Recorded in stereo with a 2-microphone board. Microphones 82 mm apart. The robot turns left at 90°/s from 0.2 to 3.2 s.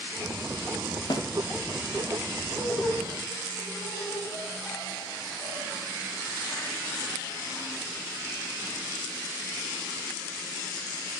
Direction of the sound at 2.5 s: 5° right (ahead or behind).